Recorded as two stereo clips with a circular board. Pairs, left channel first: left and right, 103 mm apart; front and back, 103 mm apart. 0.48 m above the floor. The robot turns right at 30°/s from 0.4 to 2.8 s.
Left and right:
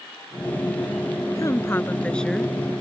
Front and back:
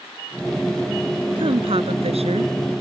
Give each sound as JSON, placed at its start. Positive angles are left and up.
{"t": 1.4, "sound": "a woman speaking", "azimuth_deg": 145}